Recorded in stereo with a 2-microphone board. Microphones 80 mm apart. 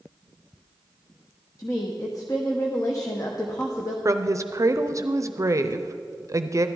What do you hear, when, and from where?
1.6 s a woman speaking: 45° left (ahead or behind), 0.9 m
4.0 s a woman speaking: 40° right (ahead or behind), 0.5 m